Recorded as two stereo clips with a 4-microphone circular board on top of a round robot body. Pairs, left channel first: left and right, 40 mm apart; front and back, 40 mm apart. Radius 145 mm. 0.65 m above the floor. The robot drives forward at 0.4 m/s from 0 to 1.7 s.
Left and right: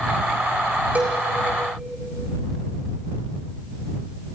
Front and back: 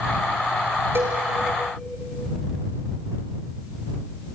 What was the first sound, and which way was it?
A cowbell, 150° right.